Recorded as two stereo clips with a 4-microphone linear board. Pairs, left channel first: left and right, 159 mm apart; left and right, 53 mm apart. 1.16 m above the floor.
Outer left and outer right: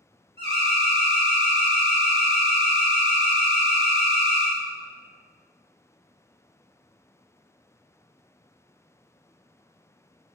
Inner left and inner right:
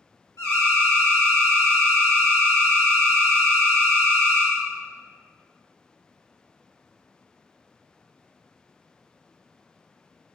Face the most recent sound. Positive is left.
turn(degrees=85)